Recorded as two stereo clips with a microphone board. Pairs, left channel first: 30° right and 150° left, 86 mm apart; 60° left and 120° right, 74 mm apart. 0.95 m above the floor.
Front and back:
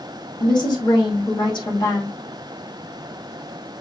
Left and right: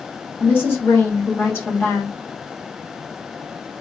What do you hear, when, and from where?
0.4 s a woman speaking: straight ahead, 2 m